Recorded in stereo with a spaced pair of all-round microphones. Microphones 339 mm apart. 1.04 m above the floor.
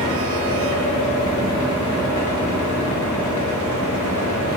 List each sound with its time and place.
0.0 s a fan: 60° left (ahead or behind), 0.8 m